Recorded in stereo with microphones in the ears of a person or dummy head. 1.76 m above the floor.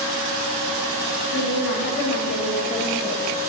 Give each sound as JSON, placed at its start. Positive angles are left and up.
{"t": 1.3, "sound": "a woman speaking", "side_deg": 60, "distance_m": 2.0}